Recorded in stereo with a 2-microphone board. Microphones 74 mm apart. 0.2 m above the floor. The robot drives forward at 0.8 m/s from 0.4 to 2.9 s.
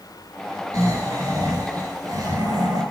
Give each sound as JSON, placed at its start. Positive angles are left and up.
{"t": 0.7, "sound": "snoring", "side_deg": -45, "distance_m": 4.5}